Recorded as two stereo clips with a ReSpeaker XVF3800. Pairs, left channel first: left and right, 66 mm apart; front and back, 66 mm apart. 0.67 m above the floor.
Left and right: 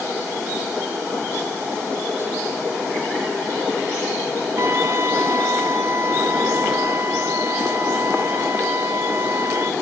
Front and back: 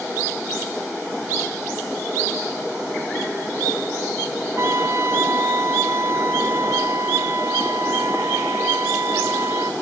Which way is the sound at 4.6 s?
135° right.